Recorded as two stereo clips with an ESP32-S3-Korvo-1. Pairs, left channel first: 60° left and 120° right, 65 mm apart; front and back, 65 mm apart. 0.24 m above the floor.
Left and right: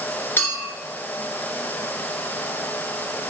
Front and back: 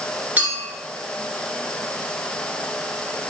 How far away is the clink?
About 2 m.